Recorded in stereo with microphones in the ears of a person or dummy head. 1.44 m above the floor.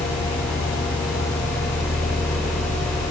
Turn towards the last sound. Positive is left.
No sound to turn to.